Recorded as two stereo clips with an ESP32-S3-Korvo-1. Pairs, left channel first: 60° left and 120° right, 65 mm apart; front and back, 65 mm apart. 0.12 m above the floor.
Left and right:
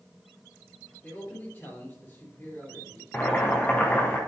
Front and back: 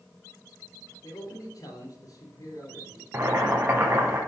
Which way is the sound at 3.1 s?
125° left.